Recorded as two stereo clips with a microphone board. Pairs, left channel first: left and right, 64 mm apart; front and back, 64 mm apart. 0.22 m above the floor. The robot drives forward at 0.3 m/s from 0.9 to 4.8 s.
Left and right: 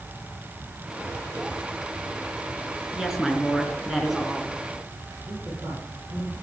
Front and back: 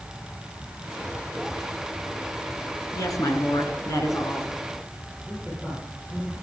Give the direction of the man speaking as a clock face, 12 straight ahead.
2 o'clock.